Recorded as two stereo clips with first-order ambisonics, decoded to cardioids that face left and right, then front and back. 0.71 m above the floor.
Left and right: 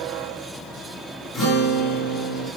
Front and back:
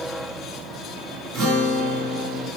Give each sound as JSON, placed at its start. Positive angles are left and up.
{"t": 1.3, "sound": "a guitar", "azimuth_deg": 160, "distance_m": 2.0}